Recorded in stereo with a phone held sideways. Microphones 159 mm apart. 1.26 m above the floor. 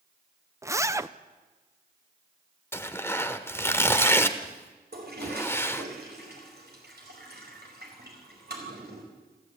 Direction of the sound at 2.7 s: 15° left (ahead or behind).